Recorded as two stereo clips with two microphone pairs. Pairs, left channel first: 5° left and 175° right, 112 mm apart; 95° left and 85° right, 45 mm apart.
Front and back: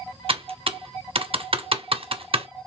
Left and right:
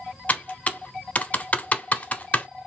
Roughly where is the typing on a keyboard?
Behind left.